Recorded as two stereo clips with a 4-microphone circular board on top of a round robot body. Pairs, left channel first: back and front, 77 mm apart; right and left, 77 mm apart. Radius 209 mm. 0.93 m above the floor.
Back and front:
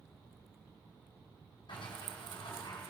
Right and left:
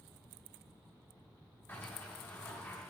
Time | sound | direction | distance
1.7 | a sliding door | 155° right | 2 m